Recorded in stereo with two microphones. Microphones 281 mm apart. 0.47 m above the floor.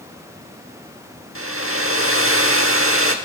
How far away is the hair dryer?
About 0.9 m.